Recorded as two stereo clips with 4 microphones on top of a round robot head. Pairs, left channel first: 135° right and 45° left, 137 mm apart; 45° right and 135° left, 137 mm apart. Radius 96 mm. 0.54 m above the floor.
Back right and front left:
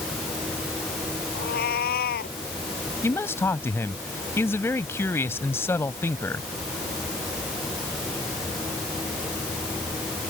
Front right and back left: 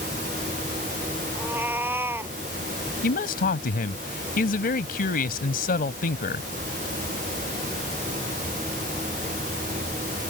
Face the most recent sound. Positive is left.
turn(degrees=-65)